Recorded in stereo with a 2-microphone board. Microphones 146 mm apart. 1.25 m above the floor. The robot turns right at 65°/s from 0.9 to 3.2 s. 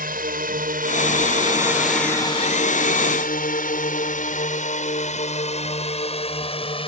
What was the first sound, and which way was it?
A drone, 80° right.